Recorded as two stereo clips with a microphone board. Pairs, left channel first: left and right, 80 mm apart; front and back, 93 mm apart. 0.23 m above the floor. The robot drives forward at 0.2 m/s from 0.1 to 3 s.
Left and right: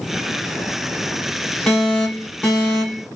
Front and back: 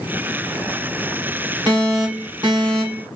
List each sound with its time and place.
1.7 s an alarm: 165° left, 2 m